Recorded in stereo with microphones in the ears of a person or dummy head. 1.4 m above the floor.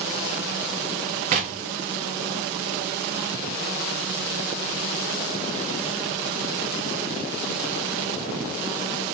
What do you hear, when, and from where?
1.3 s knocking: 35° right (ahead or behind), 0.5 m